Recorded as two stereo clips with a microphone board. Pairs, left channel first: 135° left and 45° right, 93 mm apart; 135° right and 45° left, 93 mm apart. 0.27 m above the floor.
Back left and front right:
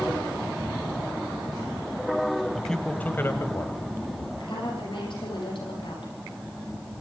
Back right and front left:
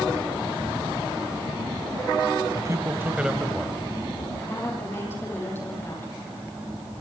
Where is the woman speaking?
160° left, 9.5 m.